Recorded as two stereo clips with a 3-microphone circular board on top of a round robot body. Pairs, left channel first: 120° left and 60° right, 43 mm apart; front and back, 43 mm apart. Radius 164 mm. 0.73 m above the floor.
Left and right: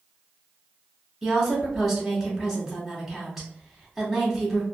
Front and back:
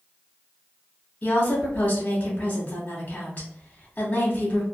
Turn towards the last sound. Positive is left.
turn(degrees=30)